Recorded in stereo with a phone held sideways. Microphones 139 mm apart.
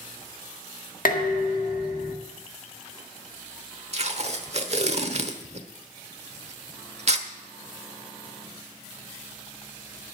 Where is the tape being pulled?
50° right (ahead or behind), 1.0 m.